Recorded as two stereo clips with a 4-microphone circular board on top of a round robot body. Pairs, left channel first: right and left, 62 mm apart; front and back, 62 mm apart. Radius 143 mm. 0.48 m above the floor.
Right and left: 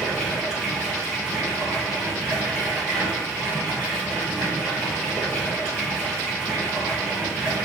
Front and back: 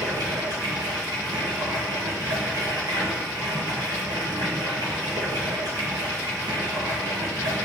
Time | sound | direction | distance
0.0 | running water | straight behind | 0.9 m